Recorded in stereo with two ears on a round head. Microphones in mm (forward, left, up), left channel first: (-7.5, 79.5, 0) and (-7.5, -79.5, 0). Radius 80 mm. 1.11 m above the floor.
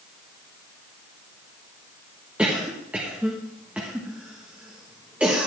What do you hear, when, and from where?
2.4 s a cough: 5° right (ahead or behind), 1.3 m